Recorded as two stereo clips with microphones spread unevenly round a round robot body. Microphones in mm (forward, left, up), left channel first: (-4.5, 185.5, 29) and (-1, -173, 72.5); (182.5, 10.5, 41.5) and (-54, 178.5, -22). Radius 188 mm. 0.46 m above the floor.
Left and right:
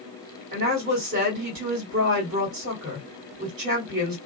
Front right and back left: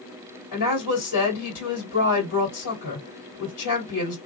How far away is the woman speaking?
About 1.7 m.